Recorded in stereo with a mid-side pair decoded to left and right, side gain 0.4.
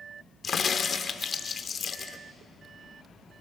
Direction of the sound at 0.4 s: 50° left.